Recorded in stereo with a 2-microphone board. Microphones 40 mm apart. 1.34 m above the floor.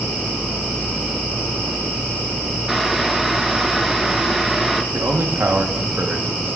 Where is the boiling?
5° right (ahead or behind), 0.7 m.